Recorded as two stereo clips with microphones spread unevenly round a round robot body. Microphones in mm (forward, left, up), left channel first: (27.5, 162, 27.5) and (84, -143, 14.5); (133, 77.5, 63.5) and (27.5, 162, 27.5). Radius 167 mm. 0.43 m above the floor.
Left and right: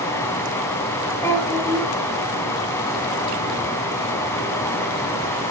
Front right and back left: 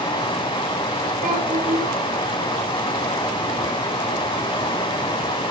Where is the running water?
20° left, 3.5 m.